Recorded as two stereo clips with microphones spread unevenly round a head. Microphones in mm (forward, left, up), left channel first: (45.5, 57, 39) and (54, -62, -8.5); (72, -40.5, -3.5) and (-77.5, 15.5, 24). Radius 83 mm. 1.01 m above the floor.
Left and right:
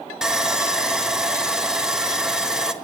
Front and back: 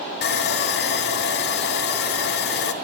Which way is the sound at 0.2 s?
10° right.